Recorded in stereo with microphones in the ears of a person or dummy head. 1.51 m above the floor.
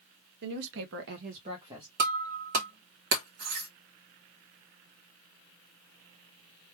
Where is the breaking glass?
45° right (ahead or behind), 0.9 m.